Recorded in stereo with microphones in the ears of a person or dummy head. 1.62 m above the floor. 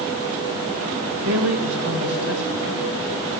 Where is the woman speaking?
75° right (ahead or behind), 2.5 m.